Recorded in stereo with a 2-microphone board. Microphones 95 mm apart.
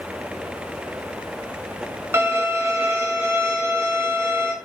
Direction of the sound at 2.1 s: 25° right (ahead or behind).